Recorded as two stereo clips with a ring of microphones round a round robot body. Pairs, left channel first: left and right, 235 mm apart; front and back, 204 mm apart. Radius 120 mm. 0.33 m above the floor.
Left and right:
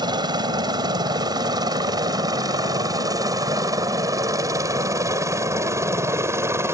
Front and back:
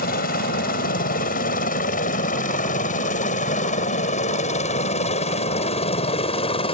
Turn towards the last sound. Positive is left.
turn(degrees=-25)